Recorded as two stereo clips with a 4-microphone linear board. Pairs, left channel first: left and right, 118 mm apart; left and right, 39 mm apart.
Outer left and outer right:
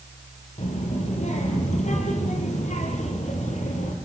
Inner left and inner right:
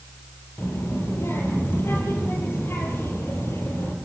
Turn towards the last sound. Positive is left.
turn(degrees=80)